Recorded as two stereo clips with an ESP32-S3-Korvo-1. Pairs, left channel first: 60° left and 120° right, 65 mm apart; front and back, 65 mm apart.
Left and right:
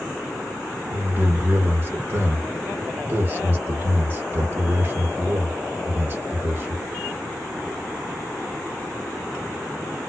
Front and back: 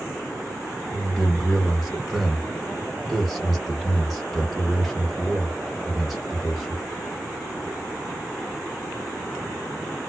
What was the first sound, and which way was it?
A man speaking, 90° right.